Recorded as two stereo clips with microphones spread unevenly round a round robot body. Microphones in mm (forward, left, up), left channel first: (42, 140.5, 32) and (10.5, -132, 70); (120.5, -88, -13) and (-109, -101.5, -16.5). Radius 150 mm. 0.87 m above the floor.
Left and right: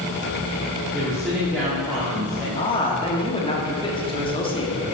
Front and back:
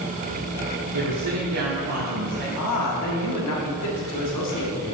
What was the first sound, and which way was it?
A woman speaking, 175° left.